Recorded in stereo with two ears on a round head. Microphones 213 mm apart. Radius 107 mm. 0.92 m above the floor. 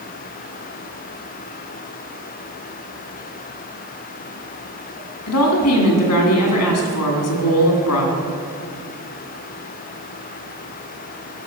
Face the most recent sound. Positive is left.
turn(degrees=70)  # may be behind; listen again after turning